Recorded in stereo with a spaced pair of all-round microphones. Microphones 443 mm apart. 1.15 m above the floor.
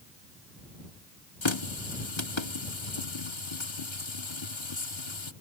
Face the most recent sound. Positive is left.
turn(degrees=75)  # may be behind; listen again after turning